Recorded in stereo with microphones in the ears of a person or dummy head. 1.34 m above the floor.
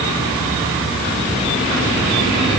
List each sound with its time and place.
Only background noise.